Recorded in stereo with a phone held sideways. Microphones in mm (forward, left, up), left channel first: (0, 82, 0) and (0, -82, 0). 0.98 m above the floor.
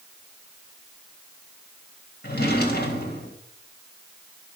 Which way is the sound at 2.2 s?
80° left.